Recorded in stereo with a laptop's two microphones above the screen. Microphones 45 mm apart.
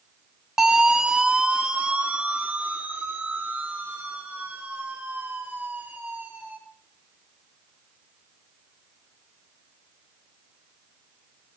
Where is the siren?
15° right (ahead or behind), 2.5 m; by 6.6 s 50° right (ahead or behind), 6.5 m.